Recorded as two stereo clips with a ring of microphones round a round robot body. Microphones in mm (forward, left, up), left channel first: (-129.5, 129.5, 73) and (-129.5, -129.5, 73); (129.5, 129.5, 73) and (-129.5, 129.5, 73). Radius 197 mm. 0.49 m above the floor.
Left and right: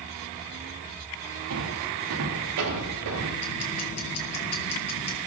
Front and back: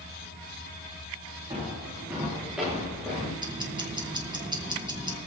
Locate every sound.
1.5 s footsteps: 100° right, 9.5 m; by 3.3 s 85° right, 9.5 m
3.4 s ticking: 105° left, 3.5 m